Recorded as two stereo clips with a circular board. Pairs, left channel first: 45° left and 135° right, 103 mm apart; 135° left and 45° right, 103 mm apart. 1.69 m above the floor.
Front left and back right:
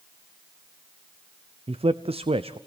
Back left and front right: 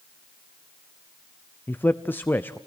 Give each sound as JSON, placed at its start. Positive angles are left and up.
{"t": 1.7, "sound": "a man speaking", "azimuth_deg": -155, "distance_m": 0.6}